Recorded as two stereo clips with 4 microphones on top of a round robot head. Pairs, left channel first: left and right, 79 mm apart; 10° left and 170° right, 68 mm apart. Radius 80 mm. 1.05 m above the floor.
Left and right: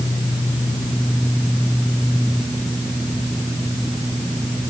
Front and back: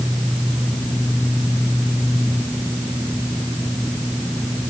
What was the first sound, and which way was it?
Only background noise.